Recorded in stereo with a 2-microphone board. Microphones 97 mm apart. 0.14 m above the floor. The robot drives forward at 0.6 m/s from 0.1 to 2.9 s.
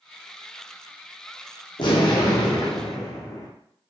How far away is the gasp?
I don't hear a gasp.